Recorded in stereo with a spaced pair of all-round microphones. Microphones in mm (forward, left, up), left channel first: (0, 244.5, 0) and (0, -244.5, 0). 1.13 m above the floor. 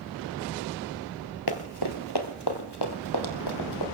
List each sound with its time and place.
1.5 s running footsteps: 50° left (ahead or behind), 1.6 m